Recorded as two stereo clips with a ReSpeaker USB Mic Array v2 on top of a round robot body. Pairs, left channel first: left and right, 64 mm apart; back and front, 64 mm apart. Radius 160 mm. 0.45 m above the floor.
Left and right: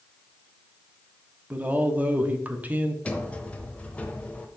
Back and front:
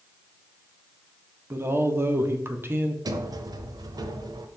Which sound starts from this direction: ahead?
A sliding door, at 3.0 s.